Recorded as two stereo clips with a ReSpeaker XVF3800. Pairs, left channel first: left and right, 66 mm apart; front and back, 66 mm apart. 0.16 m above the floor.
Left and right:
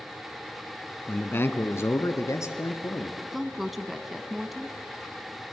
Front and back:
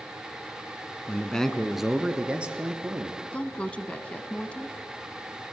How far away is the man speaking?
About 1.2 m.